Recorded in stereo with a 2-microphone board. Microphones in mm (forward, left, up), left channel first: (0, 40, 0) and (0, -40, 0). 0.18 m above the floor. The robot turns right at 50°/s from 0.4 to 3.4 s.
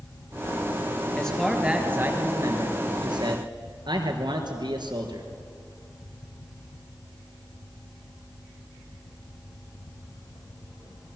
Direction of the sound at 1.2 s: 165° left.